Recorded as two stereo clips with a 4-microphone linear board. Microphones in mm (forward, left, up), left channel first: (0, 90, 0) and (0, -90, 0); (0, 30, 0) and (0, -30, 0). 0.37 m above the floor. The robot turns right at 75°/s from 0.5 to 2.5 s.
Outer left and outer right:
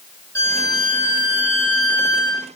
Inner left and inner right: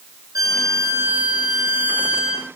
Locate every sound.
0.3 s a violin: 75° right, 6.5 m; by 2.5 s 70° left, 6.5 m